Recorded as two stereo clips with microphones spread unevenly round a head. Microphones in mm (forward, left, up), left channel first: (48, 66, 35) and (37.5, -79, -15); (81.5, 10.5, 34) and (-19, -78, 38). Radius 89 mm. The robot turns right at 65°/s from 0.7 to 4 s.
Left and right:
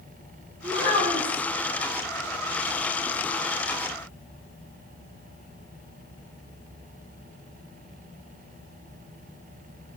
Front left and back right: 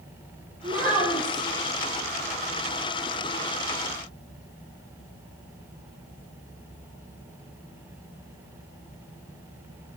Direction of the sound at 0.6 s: 135° right.